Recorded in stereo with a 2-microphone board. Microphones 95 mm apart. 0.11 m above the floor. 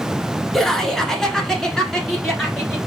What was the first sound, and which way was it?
Laughter, 5° left (ahead or behind).